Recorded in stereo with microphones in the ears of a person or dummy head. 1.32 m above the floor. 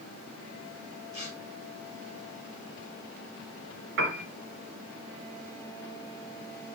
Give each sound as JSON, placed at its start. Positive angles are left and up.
{"t": 1.1, "sound": "tearing paper", "side_deg": -35, "distance_m": 4.0}
{"t": 4.0, "sound": "a piano", "side_deg": -60, "distance_m": 2.5}